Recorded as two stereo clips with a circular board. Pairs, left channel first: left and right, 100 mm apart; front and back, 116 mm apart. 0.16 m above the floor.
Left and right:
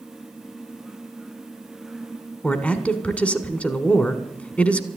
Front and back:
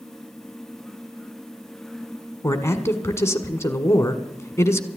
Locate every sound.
2.4 s a man speaking: 30° left, 1.2 m